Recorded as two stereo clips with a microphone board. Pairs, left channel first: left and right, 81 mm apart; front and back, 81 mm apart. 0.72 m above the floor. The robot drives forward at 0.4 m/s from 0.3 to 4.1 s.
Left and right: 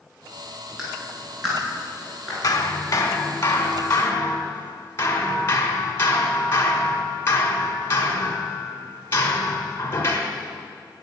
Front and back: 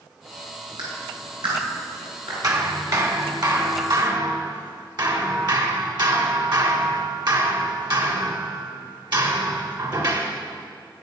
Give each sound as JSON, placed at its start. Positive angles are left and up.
{"t": 0.8, "sound": "a clap", "azimuth_deg": -175, "distance_m": 6.0}
{"t": 2.4, "sound": "hammering", "azimuth_deg": 135, "distance_m": 1.4}